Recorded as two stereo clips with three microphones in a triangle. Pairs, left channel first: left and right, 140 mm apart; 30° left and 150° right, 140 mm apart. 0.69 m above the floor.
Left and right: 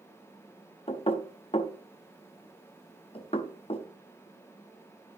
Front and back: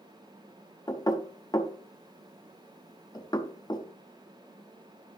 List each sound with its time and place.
0.9 s knocking: 80° left, 0.7 m